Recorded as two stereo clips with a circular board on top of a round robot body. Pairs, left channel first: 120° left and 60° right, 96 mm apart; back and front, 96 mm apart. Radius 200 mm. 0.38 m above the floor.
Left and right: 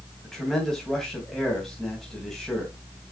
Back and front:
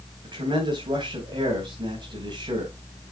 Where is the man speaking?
35° left, 3 m.